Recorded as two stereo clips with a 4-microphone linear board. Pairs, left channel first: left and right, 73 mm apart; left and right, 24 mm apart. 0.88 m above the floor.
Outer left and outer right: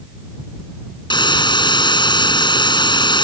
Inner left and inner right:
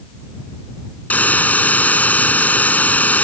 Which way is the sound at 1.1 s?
90° left.